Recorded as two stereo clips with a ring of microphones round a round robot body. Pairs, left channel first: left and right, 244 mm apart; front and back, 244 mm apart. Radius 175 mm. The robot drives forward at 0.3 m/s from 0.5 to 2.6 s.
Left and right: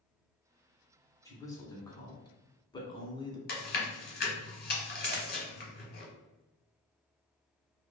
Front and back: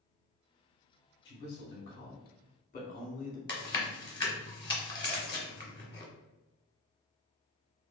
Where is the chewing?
65° left, 1.1 m.